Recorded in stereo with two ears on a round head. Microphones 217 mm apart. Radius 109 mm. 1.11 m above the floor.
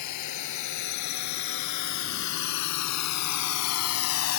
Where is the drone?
85° left; by 4.4 s 60° left (ahead or behind).